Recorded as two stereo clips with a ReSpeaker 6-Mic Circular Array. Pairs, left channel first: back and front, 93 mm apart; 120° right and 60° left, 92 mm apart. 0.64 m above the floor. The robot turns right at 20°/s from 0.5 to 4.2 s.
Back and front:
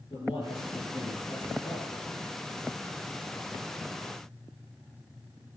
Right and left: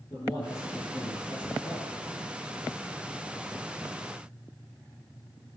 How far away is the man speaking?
About 8.5 m.